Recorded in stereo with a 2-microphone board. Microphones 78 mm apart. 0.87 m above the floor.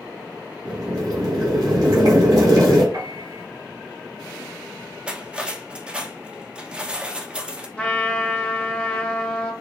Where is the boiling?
50° right (ahead or behind), 2.5 m.